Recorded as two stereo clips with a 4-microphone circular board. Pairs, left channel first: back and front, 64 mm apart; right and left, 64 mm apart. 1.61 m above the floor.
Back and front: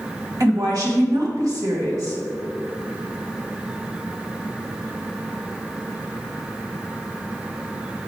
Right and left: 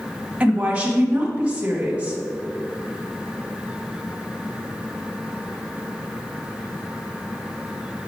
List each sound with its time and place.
0.4 s a woman speaking: 20° left, 2.0 m